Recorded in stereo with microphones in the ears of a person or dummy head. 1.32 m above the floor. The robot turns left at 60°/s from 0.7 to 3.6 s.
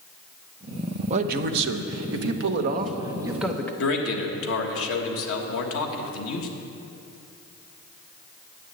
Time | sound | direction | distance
1.1 | a man speaking | 35° right | 0.8 m
3.8 | a man speaking | 80° left | 1.4 m